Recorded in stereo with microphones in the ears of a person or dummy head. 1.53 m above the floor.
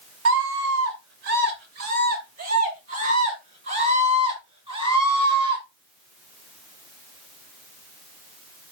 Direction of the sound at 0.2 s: 80° right.